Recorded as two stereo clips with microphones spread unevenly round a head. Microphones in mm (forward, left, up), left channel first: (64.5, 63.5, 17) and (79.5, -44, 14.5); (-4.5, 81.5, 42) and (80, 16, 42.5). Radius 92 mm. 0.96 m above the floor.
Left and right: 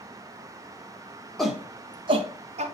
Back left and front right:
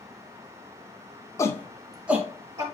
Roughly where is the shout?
Behind.